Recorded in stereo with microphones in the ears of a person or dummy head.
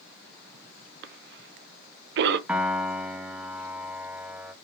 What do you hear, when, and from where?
1.0 s a cough: 60° right (ahead or behind), 0.6 m
2.5 s a piano: 5° right (ahead or behind), 0.6 m